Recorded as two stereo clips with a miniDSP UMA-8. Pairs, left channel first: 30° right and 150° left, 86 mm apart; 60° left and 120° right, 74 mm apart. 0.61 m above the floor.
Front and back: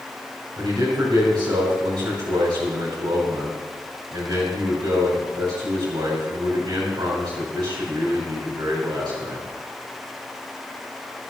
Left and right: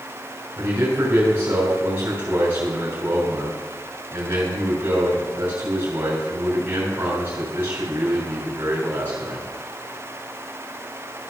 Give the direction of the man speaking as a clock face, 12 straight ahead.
6 o'clock.